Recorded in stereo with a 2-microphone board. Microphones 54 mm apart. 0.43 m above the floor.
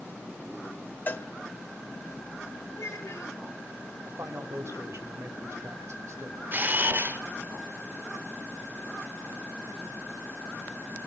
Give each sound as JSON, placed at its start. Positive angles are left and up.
{"t": 1.1, "sound": "a cowbell", "side_deg": 35, "distance_m": 1.0}
{"t": 2.7, "sound": "a child speaking", "side_deg": 70, "distance_m": 3.0}
{"t": 4.0, "sound": "a man speaking", "side_deg": -55, "distance_m": 2.5}
{"t": 6.5, "sound": "a camera shutter", "side_deg": -35, "distance_m": 1.0}